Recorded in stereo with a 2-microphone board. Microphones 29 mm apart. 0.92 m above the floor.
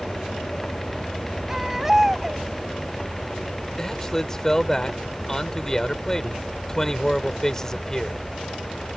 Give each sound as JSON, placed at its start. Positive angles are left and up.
{"t": 1.5, "sound": "a baby crying", "side_deg": -15}
{"t": 3.8, "sound": "a man speaking", "side_deg": 15}